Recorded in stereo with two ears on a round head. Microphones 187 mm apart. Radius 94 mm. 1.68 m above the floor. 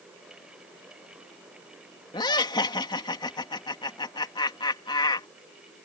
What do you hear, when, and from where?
2.1 s laughter: 20° left (ahead or behind)